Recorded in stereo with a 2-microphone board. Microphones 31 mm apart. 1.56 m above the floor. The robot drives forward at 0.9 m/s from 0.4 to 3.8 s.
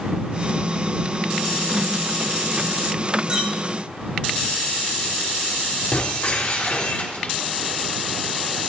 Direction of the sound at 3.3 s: 30° right (ahead or behind).